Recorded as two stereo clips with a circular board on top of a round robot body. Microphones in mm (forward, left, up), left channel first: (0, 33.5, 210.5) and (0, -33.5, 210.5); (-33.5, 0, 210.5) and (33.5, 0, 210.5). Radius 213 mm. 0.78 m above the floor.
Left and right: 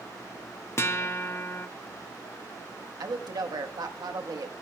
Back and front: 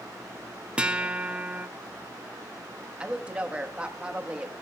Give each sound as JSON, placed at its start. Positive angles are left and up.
{"t": 0.8, "sound": "a guitar", "azimuth_deg": 65, "distance_m": 1.1}
{"t": 3.0, "sound": "a woman speaking", "azimuth_deg": -75, "distance_m": 1.3}